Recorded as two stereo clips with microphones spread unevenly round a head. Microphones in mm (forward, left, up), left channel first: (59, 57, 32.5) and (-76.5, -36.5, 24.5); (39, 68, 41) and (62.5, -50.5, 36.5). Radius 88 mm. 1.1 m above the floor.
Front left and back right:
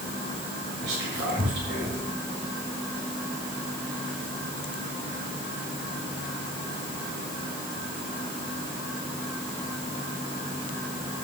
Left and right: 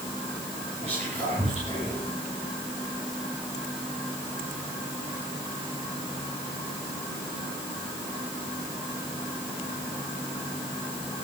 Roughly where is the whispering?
Behind right.